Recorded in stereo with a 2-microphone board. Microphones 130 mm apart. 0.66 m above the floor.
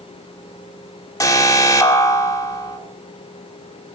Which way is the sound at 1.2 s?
25° left (ahead or behind).